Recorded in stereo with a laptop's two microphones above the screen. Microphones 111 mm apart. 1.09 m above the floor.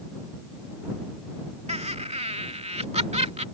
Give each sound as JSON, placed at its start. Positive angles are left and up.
{"t": 1.7, "sound": "laughter", "side_deg": -75}